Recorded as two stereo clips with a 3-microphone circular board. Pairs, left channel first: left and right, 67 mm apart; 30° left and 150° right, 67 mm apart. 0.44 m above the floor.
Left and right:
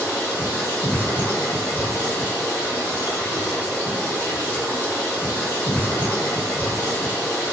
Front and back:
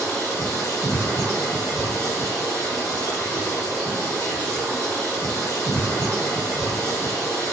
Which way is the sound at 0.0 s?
40° left.